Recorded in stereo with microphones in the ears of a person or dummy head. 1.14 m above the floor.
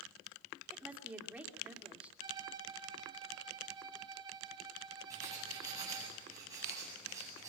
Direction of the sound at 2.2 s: 25° right (ahead or behind).